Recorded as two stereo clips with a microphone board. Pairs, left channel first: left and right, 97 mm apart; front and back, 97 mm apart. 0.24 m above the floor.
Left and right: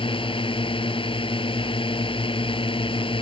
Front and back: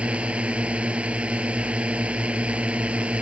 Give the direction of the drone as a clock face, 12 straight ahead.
9 o'clock.